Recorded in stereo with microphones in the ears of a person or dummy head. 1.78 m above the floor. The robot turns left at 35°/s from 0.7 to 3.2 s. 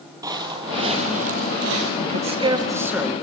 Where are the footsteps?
20° right (ahead or behind), 2.5 m; by 1.9 s 55° right (ahead or behind), 3 m.